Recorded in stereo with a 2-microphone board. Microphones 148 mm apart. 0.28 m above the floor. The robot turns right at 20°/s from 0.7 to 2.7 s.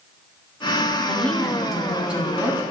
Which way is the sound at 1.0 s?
170° left.